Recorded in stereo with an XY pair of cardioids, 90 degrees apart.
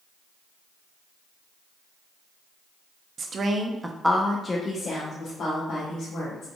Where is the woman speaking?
55° right, 0.8 m; by 6.5 s 70° left, 1.9 m.